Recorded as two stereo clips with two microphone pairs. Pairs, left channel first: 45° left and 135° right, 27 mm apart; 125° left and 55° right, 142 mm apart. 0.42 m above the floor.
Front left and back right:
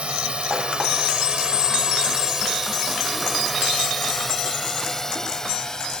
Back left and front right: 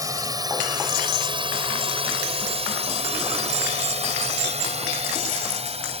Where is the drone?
110° right; by 6.0 s 15° right.